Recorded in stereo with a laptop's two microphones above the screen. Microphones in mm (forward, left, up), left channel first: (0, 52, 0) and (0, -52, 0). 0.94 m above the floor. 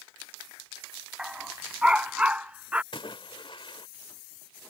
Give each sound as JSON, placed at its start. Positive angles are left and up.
{"t": 1.2, "sound": "a dog barking", "side_deg": -5}
{"t": 2.9, "sound": "a splash", "side_deg": 55}